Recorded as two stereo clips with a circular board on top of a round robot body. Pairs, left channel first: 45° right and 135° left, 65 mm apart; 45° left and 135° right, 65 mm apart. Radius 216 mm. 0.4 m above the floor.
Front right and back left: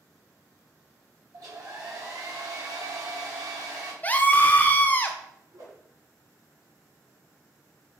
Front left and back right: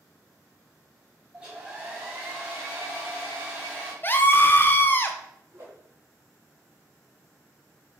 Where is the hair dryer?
150° left, 2.5 m.